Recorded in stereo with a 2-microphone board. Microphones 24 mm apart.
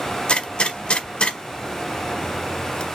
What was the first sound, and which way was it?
A gunshot, 50° left (ahead or behind).